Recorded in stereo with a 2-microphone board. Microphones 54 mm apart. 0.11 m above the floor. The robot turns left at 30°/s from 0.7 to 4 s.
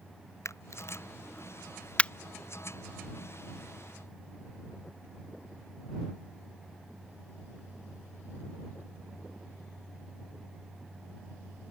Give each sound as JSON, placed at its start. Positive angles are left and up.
{"t": 0.5, "sound": "a camera shutter", "side_deg": 60}